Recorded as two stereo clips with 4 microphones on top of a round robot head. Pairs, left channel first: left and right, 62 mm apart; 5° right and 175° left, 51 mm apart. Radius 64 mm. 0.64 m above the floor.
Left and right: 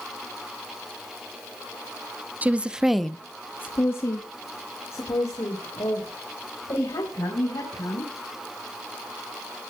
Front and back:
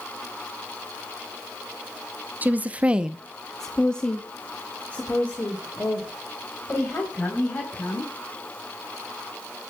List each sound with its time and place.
2.4 s a woman speaking: 145° right, 1.0 m; by 8.1 s 50° left, 5 m